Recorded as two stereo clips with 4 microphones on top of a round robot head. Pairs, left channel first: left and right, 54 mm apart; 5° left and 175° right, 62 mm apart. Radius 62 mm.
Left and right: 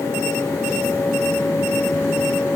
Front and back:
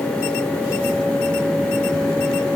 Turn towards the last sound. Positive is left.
No sound to turn to.